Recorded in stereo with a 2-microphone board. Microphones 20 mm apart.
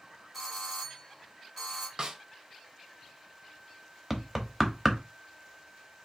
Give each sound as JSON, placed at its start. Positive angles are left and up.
{"t": 0.3, "sound": "a doorbell", "side_deg": 5, "distance_m": 3.0}
{"t": 2.0, "sound": "a snare drum", "side_deg": -30, "distance_m": 0.6}
{"t": 4.1, "sound": "knocking", "side_deg": -5, "distance_m": 0.8}